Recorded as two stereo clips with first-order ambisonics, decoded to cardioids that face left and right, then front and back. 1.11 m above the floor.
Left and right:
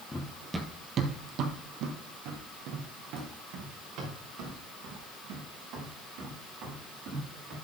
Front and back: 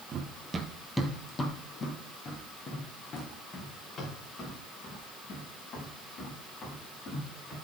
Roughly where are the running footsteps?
Behind.